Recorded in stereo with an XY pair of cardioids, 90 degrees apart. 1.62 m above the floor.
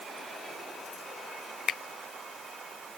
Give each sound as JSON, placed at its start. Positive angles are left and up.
{"t": 1.7, "sound": "a finger snap", "azimuth_deg": 70}